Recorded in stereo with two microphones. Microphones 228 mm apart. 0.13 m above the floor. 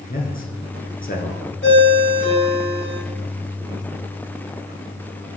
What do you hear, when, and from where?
0.1 s a man speaking: 40° left (ahead or behind), 1.6 m
1.6 s a ringtone: 55° left (ahead or behind), 2.5 m